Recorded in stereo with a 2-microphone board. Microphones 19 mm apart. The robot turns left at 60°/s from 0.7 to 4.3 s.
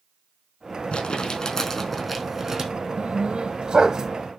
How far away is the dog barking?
About 1.6 m.